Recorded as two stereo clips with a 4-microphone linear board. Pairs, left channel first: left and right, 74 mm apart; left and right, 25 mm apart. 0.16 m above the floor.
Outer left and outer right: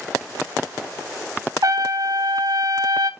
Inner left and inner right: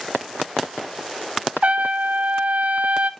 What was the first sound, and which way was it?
A trumpet, 60° right (ahead or behind).